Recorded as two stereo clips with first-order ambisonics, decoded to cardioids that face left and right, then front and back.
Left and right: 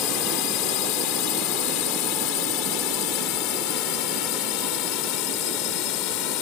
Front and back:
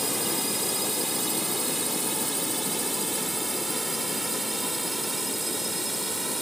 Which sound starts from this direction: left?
A drone, at 0.0 s.